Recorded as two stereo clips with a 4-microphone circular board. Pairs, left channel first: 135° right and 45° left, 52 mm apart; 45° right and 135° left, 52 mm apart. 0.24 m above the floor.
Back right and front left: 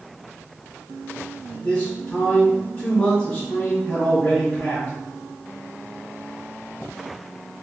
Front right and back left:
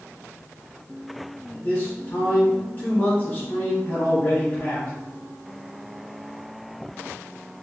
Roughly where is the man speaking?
Right.